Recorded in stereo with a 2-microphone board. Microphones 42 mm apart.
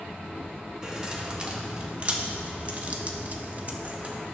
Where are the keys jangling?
20° right (ahead or behind), 1.6 m; by 4.2 s 30° right (ahead or behind), 1.3 m.